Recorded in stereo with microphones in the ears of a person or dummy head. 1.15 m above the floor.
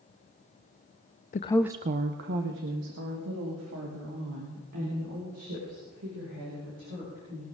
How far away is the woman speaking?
About 0.6 m.